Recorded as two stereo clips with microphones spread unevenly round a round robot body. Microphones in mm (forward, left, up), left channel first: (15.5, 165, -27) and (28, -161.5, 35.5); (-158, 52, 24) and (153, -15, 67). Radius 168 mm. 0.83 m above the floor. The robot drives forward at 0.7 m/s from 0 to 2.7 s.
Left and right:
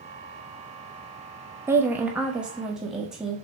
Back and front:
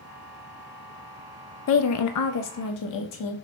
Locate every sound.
1.7 s a woman speaking: straight behind, 0.5 m